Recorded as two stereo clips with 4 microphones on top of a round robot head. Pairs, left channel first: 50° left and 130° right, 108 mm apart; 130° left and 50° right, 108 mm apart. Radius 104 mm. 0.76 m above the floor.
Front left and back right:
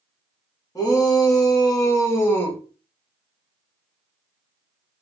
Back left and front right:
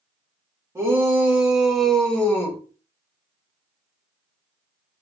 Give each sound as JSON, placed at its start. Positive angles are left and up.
{"t": 0.8, "sound": "a shout", "azimuth_deg": 10, "distance_m": 1.2}